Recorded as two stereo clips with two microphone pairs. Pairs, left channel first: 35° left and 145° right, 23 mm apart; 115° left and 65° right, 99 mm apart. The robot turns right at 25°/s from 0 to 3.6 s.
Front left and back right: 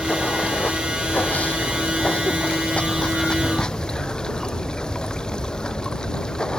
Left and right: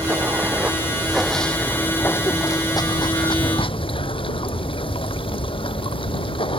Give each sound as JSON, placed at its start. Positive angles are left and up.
{"t": 0.0, "sound": "running water", "azimuth_deg": -5}